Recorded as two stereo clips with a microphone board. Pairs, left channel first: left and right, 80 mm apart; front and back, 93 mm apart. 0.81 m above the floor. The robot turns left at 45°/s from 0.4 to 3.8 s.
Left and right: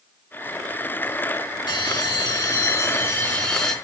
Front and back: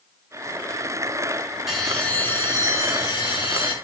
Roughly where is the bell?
Left.